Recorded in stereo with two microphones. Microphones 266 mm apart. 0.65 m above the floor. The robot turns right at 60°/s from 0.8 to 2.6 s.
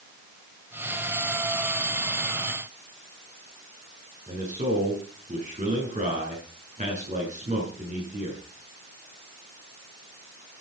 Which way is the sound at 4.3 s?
30° right (ahead or behind).